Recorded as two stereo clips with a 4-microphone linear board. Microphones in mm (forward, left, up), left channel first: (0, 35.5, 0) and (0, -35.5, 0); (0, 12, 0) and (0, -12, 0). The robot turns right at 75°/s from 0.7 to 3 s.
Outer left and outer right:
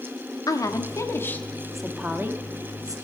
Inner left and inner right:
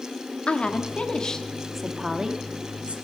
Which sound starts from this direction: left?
A woman speaking, at 0.5 s.